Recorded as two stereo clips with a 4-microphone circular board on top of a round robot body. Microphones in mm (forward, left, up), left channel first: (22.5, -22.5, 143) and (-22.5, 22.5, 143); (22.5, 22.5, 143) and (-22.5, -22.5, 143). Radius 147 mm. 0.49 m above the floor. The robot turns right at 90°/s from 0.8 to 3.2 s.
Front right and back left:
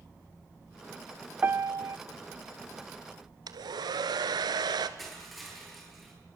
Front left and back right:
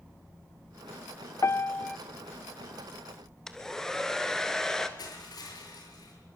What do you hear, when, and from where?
1.4 s a piano: 80° left, 0.6 m; by 2.0 s 130° left, 0.6 m
3.5 s a hair dryer: 125° left, 1.5 m
5.0 s crushing: 45° left, 8 m